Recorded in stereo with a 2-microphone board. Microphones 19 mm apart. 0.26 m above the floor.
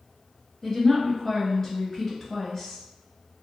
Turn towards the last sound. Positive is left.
turn(degrees=20)  # may be behind; listen again after turning